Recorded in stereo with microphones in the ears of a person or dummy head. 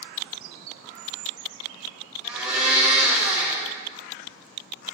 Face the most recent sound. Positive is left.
turn(degrees=-5)  # may be behind; listen again after turning